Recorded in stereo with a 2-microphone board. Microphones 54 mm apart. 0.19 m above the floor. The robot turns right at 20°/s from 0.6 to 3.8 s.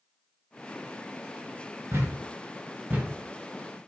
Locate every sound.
1.9 s a thud: 50° right (ahead or behind), 1.6 m; by 3.9 s 10° right (ahead or behind), 1.6 m